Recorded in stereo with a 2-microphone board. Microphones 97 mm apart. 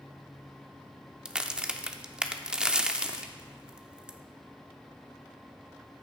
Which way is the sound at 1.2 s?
10° right (ahead or behind).